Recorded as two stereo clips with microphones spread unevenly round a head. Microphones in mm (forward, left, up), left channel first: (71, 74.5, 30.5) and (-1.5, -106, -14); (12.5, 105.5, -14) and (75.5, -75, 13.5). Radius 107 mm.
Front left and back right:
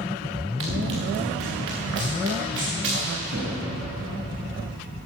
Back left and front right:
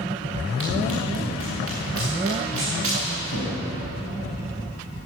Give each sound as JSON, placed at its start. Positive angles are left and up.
{"t": 0.6, "sound": "running footsteps", "azimuth_deg": -90, "distance_m": 4.5}